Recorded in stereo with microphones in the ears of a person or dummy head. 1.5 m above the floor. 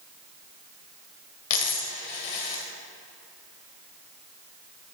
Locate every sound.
1.5 s a dropped coin: 40° left (ahead or behind), 1.6 m